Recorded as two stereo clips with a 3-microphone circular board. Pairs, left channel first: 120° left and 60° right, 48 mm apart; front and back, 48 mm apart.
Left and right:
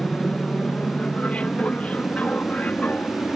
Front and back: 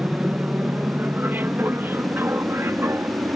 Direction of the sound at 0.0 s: 165° left.